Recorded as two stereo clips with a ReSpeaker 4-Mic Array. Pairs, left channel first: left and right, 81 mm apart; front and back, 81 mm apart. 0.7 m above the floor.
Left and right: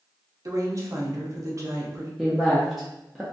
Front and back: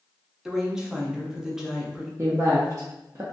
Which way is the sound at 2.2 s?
Straight behind.